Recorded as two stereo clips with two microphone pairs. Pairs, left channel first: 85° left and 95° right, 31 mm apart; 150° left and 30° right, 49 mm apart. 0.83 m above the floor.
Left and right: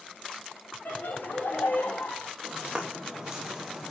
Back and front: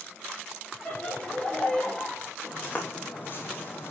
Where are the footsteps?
160° right, 3 m; by 3.9 s 175° right, 2 m.